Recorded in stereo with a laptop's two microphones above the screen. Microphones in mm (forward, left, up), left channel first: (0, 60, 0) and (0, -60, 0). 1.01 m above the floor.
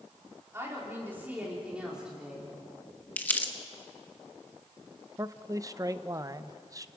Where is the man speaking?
30° right (ahead or behind), 0.8 m.